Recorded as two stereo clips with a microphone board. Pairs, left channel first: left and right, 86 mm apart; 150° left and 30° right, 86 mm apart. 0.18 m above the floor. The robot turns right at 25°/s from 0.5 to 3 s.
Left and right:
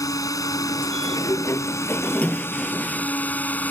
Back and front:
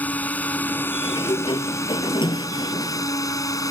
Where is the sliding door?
130° left; by 3.1 s straight behind.